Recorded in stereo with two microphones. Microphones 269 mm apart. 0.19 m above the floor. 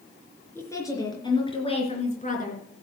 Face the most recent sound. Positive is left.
turn(degrees=35)  # may be behind; listen again after turning